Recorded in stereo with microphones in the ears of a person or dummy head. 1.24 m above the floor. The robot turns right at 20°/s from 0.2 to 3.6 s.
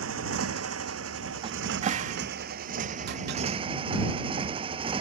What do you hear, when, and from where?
0.0 s a motorcycle: 100° right; by 5.0 s 35° right
1.4 s a cupboard door: 30° right (ahead or behind); by 3.4 s 65° right (ahead or behind)